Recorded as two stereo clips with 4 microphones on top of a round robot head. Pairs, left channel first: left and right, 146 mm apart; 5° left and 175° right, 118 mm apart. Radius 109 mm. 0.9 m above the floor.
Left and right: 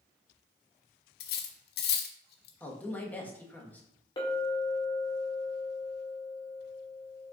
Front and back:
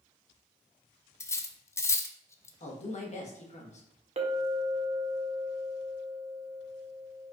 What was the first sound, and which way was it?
Cutlery clinking, 75° left.